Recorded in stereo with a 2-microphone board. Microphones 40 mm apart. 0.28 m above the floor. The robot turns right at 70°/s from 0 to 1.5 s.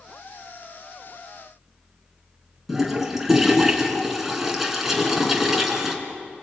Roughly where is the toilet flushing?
Centre.